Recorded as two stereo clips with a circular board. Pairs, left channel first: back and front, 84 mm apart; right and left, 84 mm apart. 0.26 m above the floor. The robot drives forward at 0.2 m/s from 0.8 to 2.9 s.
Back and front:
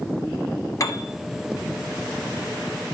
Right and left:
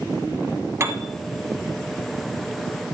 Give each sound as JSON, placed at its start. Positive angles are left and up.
{"t": 0.8, "sound": "a piano", "azimuth_deg": 140, "distance_m": 1.1}